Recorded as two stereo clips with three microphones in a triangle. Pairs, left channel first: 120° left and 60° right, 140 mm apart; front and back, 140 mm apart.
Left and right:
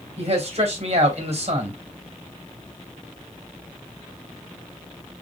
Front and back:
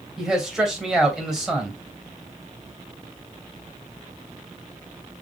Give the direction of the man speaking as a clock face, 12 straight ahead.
3 o'clock.